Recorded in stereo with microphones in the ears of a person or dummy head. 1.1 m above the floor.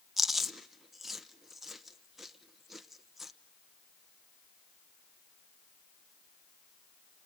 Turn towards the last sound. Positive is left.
turn(degrees=0)  # may be behind; listen again after turning